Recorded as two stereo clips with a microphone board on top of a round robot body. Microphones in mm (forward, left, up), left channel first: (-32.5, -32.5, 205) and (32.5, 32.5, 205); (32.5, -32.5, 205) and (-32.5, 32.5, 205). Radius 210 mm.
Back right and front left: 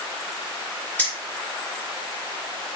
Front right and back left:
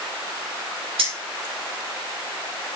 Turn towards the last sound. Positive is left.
turn(degrees=150)